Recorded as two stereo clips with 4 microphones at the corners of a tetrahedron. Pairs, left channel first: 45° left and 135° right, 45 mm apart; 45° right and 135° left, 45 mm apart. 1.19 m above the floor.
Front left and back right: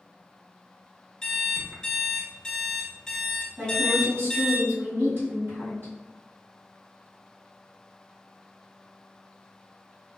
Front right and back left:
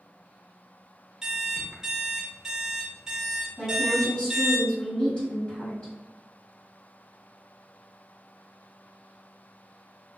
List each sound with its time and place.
1.2 s an alarm clock: 100° left, 0.7 m
3.6 s a woman speaking: 110° right, 1.5 m